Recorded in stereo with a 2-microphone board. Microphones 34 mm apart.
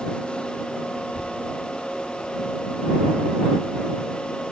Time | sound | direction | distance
1.0 | a child speaking | 35° right (ahead or behind) | ?